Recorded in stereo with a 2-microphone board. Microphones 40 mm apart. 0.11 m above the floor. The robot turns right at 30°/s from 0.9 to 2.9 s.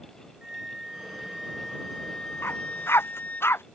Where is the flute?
15° right; by 3.4 s 45° left.